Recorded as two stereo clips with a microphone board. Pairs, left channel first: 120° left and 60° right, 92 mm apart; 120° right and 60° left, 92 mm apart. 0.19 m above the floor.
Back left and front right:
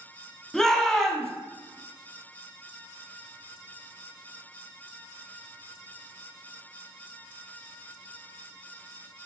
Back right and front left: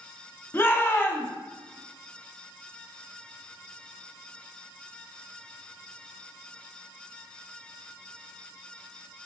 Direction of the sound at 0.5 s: 160° right.